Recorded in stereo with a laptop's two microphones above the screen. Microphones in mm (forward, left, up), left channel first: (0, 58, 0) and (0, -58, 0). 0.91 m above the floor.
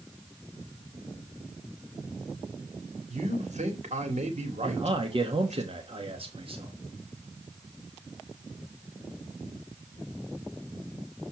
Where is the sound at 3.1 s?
80° right, 2 m.